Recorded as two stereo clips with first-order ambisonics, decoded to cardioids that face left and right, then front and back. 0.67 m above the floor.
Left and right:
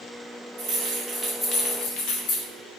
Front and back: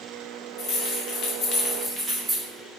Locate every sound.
0.6 s keys jangling: 40° right, 1.1 m; by 2.5 s 100° left, 1.1 m